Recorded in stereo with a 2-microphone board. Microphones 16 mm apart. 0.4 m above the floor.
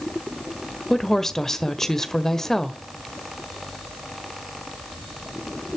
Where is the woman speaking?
30° left (ahead or behind), 1.6 m.